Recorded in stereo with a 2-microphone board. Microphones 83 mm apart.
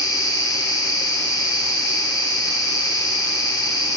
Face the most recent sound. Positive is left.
turn(degrees=50)  # may be behind; listen again after turning